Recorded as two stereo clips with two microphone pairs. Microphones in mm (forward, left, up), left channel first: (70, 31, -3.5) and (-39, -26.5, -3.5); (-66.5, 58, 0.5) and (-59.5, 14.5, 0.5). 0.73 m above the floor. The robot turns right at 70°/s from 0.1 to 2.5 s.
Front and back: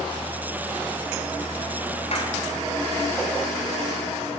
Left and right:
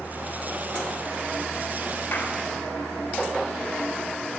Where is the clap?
60° left, 2.5 m; by 2.3 s 75° left, 2.5 m.